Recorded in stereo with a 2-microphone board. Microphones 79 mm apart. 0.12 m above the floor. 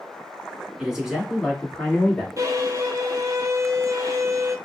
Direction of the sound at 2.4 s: 45° right (ahead or behind).